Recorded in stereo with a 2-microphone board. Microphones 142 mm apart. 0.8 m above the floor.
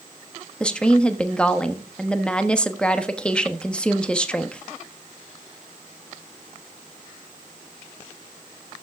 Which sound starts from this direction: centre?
A woman speaking, at 0.6 s.